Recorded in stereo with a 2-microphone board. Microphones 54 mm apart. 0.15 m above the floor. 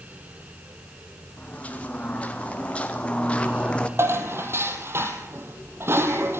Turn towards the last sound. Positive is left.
turn(degrees=-45)  # may be behind; listen again after turning